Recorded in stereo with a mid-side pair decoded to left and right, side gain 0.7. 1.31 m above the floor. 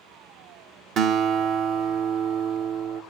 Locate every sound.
1.0 s a guitar: 50° right, 1.0 m